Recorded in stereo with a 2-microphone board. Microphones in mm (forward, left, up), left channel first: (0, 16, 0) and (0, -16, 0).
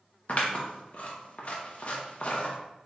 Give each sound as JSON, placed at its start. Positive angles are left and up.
{"t": 0.3, "sound": "scissors", "side_deg": 50, "distance_m": 0.8}